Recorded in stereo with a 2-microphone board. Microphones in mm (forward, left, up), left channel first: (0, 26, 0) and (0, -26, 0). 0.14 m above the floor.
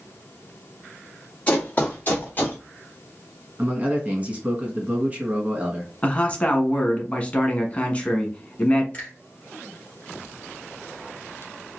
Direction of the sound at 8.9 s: 25° left (ahead or behind).